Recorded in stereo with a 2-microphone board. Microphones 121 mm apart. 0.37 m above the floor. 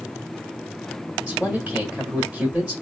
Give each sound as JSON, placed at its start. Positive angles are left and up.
{"t": 1.3, "sound": "a man speaking", "side_deg": -10, "distance_m": 1.2}